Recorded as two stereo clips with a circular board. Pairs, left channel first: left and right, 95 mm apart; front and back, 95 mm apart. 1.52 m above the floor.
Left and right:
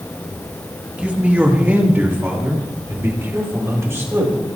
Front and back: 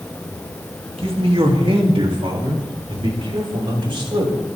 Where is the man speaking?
165° right, 2.5 m; by 4.3 s 150° right, 5.5 m.